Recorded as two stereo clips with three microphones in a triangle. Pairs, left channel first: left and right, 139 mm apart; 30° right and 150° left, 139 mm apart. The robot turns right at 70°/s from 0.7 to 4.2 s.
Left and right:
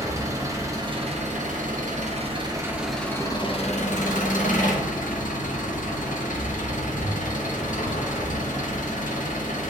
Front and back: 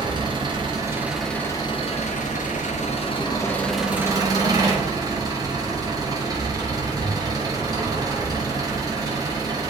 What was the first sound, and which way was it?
An engine running, 155° right.